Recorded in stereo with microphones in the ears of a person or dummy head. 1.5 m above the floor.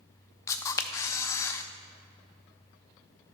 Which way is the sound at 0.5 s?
20° left (ahead or behind).